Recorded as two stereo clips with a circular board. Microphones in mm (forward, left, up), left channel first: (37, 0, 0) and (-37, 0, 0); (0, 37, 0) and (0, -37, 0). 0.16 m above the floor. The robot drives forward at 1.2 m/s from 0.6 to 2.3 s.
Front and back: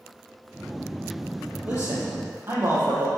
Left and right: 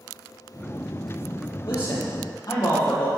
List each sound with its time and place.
1.6 s a man speaking: 115° left, 4 m; by 3.1 s 125° left, 4.5 m